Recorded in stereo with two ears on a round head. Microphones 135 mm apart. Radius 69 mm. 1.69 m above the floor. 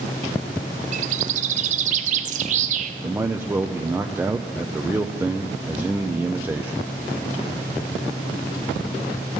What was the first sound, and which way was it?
A bird, 50° right (ahead or behind).